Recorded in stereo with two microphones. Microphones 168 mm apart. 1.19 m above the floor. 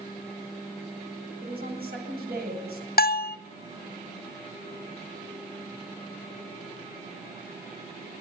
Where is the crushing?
No crushing in this recording.